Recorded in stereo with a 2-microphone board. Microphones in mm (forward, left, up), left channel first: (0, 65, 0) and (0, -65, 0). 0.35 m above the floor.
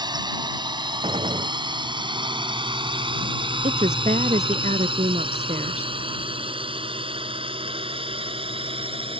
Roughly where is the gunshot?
Right.